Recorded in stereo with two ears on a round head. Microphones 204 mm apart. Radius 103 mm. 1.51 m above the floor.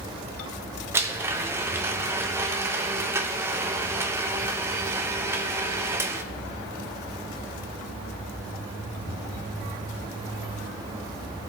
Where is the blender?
10° right (ahead or behind), 0.8 m.